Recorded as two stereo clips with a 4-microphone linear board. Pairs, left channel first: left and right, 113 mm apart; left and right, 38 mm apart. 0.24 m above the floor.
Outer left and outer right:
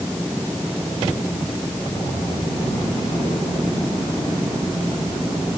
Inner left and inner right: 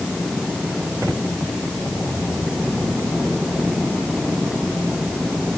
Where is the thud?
No thud in this recording.